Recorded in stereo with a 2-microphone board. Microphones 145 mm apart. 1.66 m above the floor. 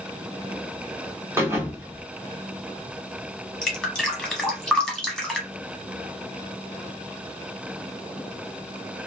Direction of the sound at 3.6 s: 5° left (ahead or behind).